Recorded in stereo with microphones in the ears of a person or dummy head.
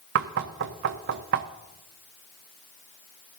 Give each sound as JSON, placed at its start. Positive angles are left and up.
{"t": 0.1, "sound": "knocking", "side_deg": -55, "distance_m": 0.7}